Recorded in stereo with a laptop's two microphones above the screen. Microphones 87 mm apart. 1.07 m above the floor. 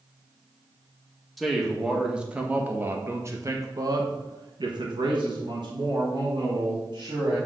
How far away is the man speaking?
About 1.7 m.